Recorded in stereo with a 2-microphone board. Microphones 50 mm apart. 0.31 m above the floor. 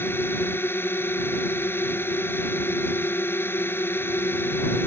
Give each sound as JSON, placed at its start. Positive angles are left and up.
{"t": 0.0, "sound": "a drone", "side_deg": 50}